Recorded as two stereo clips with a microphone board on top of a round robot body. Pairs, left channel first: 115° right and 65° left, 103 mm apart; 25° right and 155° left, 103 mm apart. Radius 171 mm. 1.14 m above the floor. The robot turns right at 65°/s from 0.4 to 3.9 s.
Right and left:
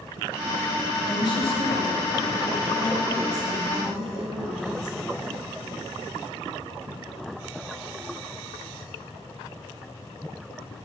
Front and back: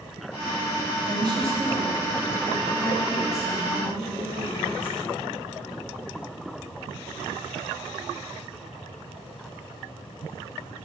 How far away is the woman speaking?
About 3 m.